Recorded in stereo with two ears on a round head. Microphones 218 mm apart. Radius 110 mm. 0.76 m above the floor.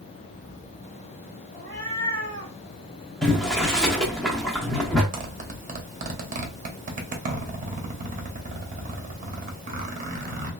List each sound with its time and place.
1.5 s a cat meowing: 15° left (ahead or behind), 2 m
3.2 s boiling: 5° left (ahead or behind), 0.9 m
5.1 s a zipper: 35° right (ahead or behind), 0.8 m